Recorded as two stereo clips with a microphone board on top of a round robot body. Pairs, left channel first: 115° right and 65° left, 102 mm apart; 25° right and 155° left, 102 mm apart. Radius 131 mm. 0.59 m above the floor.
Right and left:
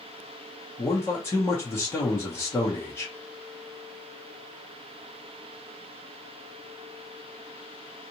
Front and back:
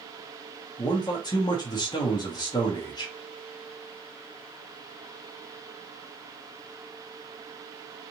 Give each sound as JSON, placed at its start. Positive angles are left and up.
{"t": 0.8, "sound": "a man speaking", "azimuth_deg": -55, "distance_m": 1.2}